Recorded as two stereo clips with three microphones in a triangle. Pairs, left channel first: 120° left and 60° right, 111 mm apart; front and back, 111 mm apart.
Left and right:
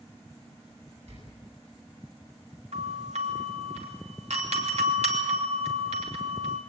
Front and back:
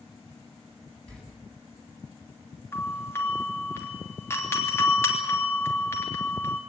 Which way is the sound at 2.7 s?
65° right.